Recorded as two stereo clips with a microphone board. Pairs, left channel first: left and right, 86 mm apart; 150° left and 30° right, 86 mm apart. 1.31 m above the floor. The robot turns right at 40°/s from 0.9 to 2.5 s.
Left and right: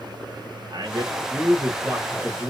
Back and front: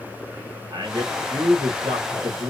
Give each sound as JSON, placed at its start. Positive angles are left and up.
{"t": 0.7, "sound": "a man speaking", "azimuth_deg": -65, "distance_m": 1.6}